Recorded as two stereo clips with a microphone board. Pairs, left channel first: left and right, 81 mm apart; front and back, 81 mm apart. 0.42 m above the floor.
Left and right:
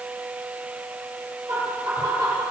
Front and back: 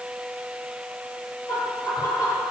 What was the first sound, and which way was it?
Laughter, 45° right.